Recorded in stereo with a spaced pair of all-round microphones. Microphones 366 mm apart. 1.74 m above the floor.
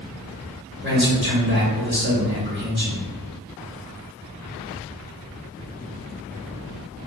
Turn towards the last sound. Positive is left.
turn(degrees=-30)  # may be behind; listen again after turning